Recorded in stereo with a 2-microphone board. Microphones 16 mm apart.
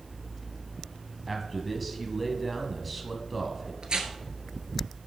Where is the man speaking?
Centre (ahead or behind), 1.2 m.